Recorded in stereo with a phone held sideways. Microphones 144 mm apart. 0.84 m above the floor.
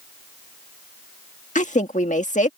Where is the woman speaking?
60° left (ahead or behind).